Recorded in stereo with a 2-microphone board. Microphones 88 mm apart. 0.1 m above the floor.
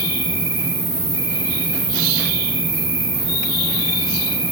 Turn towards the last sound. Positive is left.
turn(degrees=55)  # may be behind; listen again after turning